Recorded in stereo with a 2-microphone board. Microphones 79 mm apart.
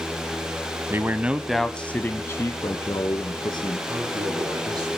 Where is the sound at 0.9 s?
30° right (ahead or behind), 1.3 m; by 3.8 s 55° left (ahead or behind), 3 m.